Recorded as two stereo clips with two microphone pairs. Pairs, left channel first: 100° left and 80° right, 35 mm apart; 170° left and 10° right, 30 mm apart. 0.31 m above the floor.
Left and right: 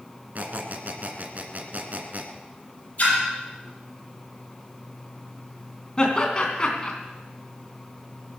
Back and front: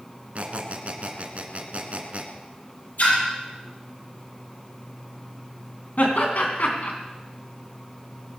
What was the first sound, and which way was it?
A squeak, 45° right.